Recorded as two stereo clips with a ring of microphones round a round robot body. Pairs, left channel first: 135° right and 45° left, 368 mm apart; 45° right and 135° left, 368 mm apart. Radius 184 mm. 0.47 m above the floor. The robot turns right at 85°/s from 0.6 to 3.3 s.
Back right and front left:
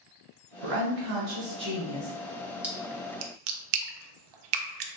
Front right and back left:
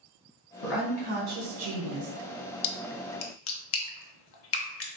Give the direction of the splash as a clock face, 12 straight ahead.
1 o'clock.